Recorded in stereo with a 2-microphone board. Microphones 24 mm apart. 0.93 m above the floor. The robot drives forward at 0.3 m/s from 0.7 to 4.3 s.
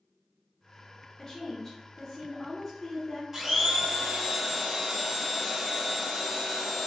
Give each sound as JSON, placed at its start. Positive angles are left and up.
{"t": 1.2, "sound": "a woman speaking", "side_deg": 25, "distance_m": 1.0}
{"t": 3.3, "sound": "a blender", "side_deg": -20, "distance_m": 1.0}